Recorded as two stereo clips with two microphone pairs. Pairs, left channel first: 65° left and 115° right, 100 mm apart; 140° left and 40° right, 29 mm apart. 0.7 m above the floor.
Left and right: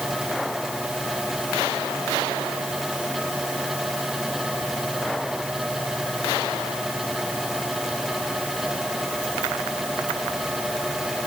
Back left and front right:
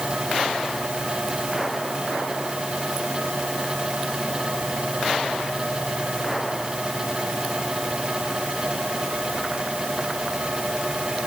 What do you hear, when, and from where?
Only background noise.